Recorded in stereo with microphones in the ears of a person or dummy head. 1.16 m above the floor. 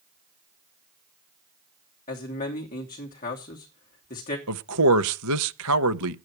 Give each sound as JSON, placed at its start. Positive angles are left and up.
{"t": 2.1, "sound": "a man speaking", "side_deg": 35, "distance_m": 3.0}
{"t": 4.5, "sound": "a man speaking", "side_deg": -70, "distance_m": 0.7}